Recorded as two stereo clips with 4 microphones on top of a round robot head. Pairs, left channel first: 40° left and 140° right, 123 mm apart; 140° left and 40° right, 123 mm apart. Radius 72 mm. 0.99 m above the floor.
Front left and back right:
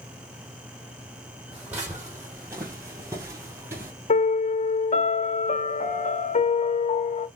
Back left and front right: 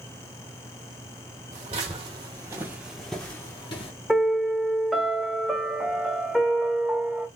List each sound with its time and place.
1.5 s footsteps: 65° right, 1.5 m; by 3.9 s 160° left, 1.1 m
4.1 s a piano: 50° left, 1.0 m